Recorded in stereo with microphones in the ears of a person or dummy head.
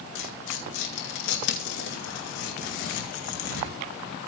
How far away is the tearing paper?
About 2.5 m.